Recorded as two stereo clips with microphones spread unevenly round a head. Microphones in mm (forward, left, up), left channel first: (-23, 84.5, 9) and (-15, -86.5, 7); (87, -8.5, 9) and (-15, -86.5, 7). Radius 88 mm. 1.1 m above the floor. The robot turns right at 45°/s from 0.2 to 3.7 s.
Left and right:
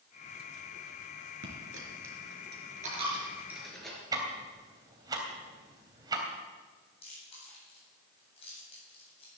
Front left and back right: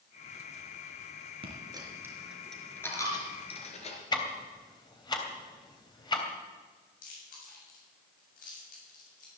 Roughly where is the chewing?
Ahead left.